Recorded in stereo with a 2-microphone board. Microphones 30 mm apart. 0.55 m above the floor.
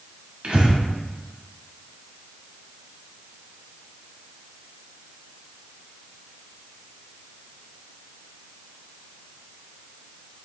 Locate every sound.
0.4 s breathing: 40° right (ahead or behind), 1.0 m